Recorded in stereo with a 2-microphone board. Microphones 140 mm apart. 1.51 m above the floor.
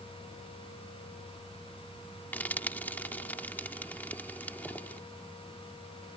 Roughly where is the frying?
Centre.